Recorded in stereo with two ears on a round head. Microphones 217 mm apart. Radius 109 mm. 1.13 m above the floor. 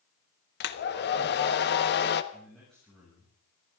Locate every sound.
0.6 s a hair dryer: 45° left (ahead or behind), 1.2 m
2.3 s a man speaking: 5° left (ahead or behind), 7 m